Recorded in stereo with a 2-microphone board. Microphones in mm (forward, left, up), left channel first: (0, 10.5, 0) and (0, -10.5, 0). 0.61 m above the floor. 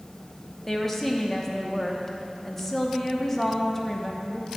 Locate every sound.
0.7 s a woman speaking: 15° left (ahead or behind), 0.9 m